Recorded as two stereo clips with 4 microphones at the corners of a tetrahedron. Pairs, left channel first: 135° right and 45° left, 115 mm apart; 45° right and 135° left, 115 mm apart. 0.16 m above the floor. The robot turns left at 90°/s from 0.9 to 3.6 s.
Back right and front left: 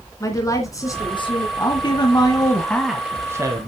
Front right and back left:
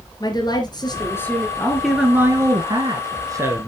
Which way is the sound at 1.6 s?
105° right.